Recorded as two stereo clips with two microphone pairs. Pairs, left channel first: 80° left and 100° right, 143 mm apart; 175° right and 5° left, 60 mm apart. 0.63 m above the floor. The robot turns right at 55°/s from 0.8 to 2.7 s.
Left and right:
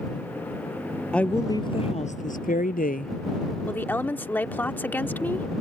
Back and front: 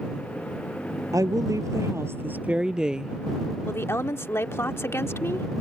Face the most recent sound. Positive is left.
turn(degrees=155)